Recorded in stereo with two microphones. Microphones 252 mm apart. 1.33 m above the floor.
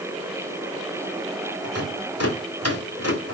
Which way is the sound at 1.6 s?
70° left (ahead or behind).